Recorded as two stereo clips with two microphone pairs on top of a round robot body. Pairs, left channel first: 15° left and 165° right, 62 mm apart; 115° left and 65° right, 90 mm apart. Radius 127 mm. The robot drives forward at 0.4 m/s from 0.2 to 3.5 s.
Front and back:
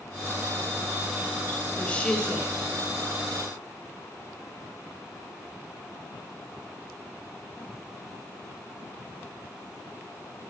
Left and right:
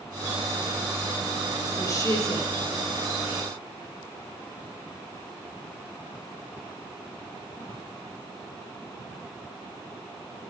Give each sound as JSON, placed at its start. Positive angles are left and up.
{"t": 1.8, "sound": "a woman speaking", "azimuth_deg": 70, "distance_m": 1.8}